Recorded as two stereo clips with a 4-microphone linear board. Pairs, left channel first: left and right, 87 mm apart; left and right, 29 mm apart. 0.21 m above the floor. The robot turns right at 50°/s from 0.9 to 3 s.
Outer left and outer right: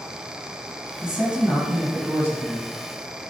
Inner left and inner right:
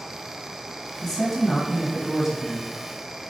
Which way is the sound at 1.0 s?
5° right (ahead or behind).